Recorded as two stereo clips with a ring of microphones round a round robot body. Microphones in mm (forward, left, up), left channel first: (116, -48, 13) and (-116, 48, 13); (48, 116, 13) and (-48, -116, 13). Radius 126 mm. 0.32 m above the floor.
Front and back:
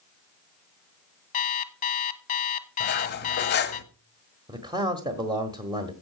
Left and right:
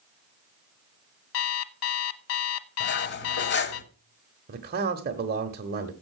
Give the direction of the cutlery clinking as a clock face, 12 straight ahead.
11 o'clock.